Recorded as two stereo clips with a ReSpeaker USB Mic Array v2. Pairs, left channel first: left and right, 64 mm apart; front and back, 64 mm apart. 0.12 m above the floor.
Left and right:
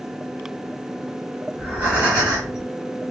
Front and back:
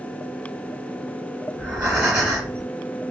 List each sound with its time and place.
1.5 s breathing: 130° right, 1.6 m